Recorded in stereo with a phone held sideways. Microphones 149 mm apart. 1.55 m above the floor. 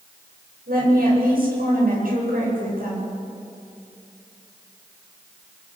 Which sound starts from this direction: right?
A woman speaking, at 0.7 s.